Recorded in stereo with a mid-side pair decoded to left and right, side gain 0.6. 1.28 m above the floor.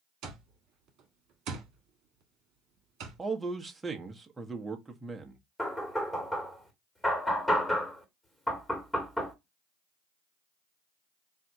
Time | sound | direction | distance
0.2 | an alarm clock | 65° right | 1.4 m
3.2 | a man speaking | 20° right | 1.1 m
5.6 | knocking | 10° left | 1.9 m